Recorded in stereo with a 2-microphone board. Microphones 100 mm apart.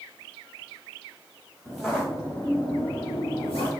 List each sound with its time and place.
1.6 s footsteps: centre (ahead or behind), 2 m; by 3.7 s 70° left (ahead or behind), 2 m